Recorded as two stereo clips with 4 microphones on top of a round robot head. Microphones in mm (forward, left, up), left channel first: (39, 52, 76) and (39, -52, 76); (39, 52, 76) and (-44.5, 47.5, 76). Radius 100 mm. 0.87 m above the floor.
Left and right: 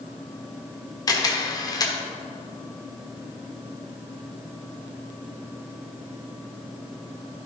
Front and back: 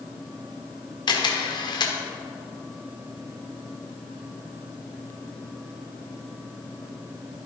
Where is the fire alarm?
No fire alarm in this recording.